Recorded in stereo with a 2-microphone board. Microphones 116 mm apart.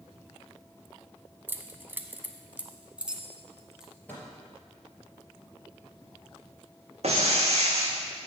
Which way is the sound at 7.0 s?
65° right (ahead or behind).